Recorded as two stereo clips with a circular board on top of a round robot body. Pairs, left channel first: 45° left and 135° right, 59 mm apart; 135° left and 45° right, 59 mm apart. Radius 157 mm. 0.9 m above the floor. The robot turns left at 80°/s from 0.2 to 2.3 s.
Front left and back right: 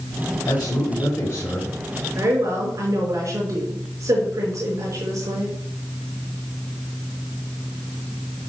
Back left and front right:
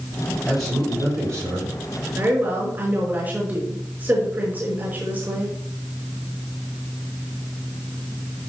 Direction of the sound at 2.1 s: 95° right.